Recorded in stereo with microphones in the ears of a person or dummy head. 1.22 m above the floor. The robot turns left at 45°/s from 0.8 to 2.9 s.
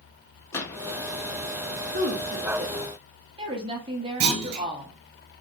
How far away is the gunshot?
About 0.7 m.